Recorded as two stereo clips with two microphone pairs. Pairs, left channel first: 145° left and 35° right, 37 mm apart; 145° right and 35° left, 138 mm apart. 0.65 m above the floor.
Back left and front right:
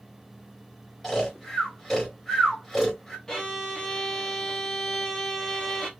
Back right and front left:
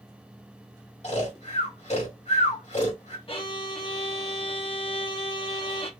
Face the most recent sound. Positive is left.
turn(degrees=-140)